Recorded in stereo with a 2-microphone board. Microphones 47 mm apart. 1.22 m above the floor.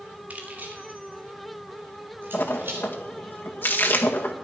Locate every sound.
0.3 s keys jangling: 35° right (ahead or behind), 2.5 m; by 2.9 s 50° right (ahead or behind), 4.5 m
2.3 s a splash: 45° left (ahead or behind), 1.8 m